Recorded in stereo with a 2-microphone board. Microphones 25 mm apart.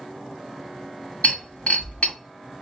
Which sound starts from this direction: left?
Breaking glass, at 1.2 s.